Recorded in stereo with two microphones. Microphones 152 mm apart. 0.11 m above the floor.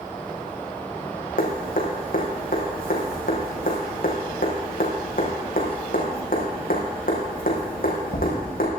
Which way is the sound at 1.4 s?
70° left (ahead or behind).